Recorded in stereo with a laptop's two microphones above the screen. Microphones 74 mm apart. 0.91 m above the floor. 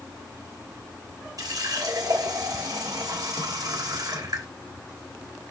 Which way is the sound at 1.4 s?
55° right (ahead or behind).